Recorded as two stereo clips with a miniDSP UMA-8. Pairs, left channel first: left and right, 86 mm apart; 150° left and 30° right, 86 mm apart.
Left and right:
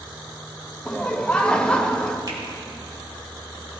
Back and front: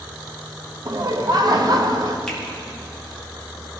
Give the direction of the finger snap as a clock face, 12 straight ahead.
4 o'clock.